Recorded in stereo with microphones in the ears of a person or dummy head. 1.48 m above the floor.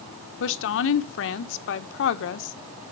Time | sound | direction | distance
0.4 | a woman speaking | 75° left (ahead or behind) | 1.1 m